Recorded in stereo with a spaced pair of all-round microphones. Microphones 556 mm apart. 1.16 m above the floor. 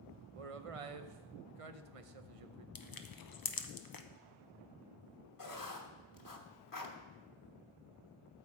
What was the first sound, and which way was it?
A man speaking, 75° right (ahead or behind).